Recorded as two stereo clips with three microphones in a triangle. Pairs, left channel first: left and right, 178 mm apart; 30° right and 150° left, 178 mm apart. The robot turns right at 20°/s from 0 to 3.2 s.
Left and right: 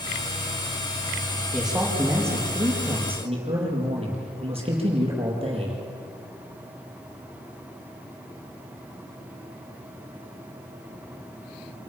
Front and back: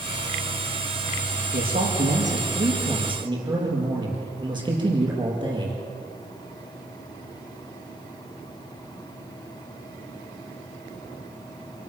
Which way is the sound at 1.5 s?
Straight behind.